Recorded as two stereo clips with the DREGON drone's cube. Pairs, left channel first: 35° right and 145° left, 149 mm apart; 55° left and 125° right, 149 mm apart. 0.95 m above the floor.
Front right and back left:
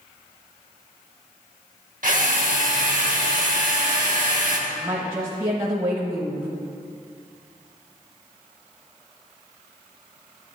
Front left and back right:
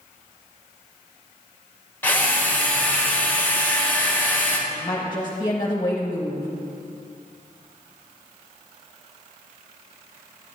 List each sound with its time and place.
2.0 s a drill: 130° left, 1.2 m
4.7 s a woman speaking: 100° left, 0.9 m